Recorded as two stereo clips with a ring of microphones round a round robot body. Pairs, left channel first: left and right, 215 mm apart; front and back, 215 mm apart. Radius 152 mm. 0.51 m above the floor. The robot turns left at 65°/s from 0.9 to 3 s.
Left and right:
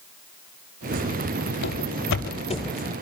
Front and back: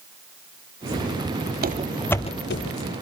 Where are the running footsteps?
140° left, 1.0 m; by 2.9 s 15° right, 1.1 m.